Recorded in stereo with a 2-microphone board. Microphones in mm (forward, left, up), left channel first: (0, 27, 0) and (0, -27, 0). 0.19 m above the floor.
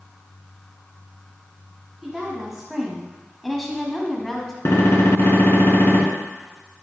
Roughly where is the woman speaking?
Centre.